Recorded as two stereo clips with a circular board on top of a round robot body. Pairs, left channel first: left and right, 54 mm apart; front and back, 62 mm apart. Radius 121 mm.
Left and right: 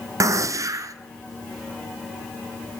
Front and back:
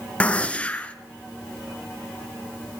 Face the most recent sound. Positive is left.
turn(degrees=-75)